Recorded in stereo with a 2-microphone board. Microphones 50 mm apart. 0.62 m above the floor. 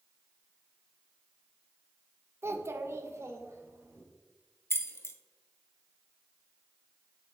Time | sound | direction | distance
2.4 | a child speaking | 55° right (ahead or behind) | 0.6 m
4.7 | keys jangling | 60° left (ahead or behind) | 0.5 m